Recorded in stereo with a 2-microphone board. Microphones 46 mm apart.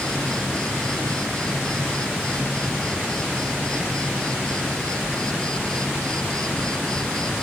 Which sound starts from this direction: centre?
An insect, at 0.0 s.